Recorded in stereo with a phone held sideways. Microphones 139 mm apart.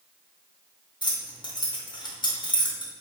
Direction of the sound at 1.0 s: 30° left (ahead or behind).